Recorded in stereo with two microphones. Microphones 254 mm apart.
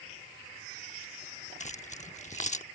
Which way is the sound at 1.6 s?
30° left (ahead or behind).